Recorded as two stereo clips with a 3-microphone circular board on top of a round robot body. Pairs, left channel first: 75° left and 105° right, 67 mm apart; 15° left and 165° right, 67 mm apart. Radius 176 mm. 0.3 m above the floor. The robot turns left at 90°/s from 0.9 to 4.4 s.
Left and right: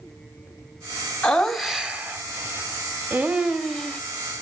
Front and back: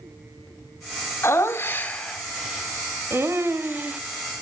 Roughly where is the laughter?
Ahead.